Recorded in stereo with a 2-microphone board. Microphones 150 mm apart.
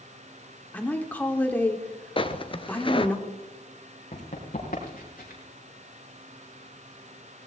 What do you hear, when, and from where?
0.7 s a woman speaking: 10° left (ahead or behind), 1.5 m
2.2 s footsteps: 35° left (ahead or behind), 0.8 m
4.1 s running footsteps: 45° left (ahead or behind), 4 m; by 5.4 s 60° left (ahead or behind), 5 m